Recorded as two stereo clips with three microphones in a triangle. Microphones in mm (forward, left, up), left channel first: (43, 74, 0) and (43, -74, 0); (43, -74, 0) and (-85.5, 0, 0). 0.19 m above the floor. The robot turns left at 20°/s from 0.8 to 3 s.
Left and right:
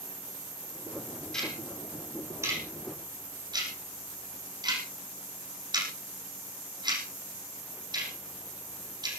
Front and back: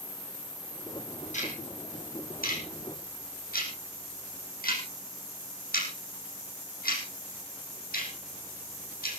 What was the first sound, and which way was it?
Ticking, 5° left.